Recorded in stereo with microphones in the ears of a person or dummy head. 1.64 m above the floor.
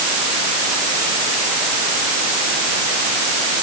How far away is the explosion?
I don't hear an explosion.